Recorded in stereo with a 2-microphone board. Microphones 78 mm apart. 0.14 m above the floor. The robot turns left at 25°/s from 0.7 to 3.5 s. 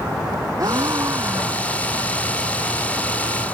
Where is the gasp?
45° right (ahead or behind); by 1.9 s 20° right (ahead or behind).